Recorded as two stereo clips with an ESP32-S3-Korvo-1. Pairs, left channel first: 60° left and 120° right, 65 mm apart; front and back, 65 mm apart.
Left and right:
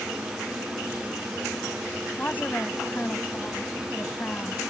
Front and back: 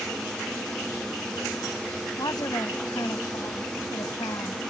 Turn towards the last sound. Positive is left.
turn(degrees=0)